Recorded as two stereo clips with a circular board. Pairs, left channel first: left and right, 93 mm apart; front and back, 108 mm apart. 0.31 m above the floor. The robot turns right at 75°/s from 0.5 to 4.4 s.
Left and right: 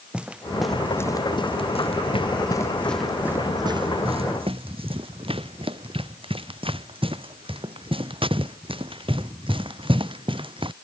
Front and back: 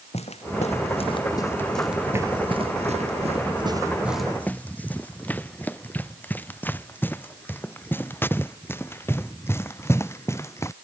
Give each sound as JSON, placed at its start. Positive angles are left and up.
{"t": 0.1, "sound": "footsteps", "azimuth_deg": -10}